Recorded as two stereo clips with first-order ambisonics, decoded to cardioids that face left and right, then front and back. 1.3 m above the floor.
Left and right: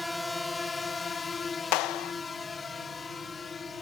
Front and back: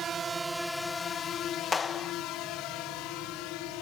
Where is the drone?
175° left; by 3.8 s 15° left.